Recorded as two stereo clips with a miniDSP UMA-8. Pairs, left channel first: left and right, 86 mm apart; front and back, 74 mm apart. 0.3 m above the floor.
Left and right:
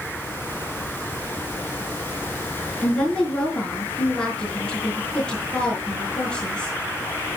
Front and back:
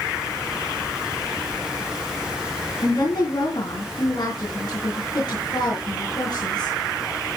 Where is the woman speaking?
10° left, 4.5 m.